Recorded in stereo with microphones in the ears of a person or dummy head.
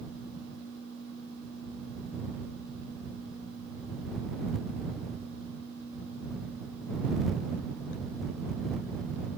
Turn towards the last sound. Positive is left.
No sound to turn to.